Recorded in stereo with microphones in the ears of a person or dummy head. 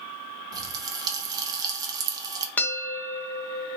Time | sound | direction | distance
0.5 | a pop | 20° right (ahead or behind) | 0.9 m
2.6 | a bell | 10° left (ahead or behind) | 0.7 m